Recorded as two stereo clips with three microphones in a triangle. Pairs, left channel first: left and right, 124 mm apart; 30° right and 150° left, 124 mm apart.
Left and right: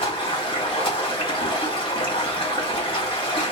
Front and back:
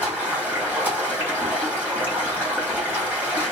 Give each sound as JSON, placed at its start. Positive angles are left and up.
{"t": 0.0, "sound": "running water", "azimuth_deg": 80, "distance_m": 1.4}